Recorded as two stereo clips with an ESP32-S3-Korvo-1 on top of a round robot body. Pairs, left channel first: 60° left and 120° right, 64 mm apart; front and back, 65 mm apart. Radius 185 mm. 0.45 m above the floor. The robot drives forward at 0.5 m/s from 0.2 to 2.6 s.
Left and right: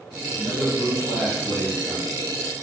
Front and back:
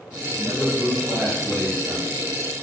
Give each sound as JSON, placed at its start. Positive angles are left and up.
{"t": 0.4, "sound": "a man speaking", "azimuth_deg": 50, "distance_m": 1.6}